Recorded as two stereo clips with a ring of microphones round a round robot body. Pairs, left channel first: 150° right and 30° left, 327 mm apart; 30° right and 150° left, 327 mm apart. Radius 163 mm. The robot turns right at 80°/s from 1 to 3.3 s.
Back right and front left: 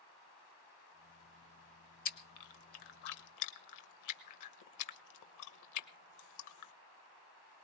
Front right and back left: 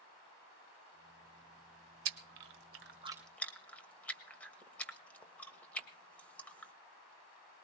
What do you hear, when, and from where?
2.0 s chewing: 145° left, 1.1 m; by 6.7 s 115° right, 1.1 m